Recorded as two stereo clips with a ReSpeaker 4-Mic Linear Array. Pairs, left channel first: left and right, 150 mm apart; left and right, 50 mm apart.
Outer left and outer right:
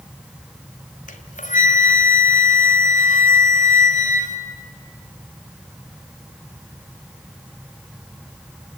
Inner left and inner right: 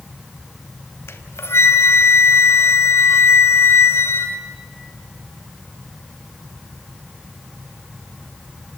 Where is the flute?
55° left (ahead or behind), 1.6 m.